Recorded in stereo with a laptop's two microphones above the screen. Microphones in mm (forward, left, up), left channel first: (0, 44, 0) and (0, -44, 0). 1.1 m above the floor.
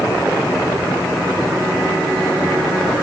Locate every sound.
Only background noise.